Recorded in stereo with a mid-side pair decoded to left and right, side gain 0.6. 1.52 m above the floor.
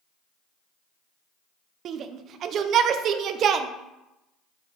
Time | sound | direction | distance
1.9 | a shout | 50° right | 0.7 m